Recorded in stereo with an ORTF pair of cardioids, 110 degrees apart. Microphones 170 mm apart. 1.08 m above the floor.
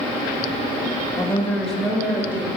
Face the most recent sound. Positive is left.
turn(degrees=-10)